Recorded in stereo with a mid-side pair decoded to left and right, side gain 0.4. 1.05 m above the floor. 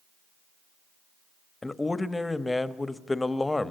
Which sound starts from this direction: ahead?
A man speaking, at 1.6 s.